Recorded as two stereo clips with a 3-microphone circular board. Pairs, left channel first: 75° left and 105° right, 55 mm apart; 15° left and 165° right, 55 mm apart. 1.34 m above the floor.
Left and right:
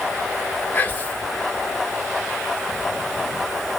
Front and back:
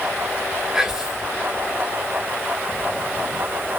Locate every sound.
0.7 s whispering: 120° left, 0.7 m